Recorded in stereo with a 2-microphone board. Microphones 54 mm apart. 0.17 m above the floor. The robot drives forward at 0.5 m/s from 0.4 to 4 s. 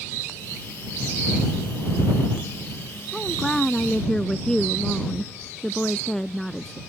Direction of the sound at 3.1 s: 10° left (ahead or behind).